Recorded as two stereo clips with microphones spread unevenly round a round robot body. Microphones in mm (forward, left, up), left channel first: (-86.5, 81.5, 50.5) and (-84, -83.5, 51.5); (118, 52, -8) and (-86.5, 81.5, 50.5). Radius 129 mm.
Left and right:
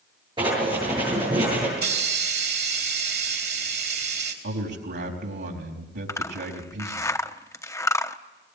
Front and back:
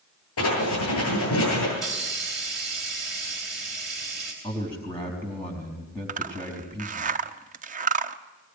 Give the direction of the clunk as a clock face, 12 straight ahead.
I don't hear a clunk.